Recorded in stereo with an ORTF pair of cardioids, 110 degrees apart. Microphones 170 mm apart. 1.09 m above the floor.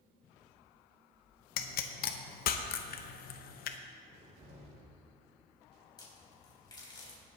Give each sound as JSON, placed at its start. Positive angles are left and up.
{"t": 1.6, "sound": "a pop", "azimuth_deg": 65, "distance_m": 0.9}
{"t": 4.0, "sound": "a cupboard door", "azimuth_deg": -40, "distance_m": 4.5}
{"t": 6.0, "sound": "a crack", "azimuth_deg": 25, "distance_m": 4.0}